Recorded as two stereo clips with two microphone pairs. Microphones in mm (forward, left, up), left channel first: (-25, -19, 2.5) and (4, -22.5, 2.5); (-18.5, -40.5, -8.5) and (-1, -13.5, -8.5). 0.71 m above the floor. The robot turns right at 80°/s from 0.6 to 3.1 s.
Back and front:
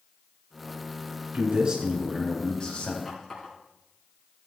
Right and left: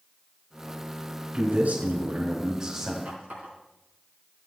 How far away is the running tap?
About 5.5 m.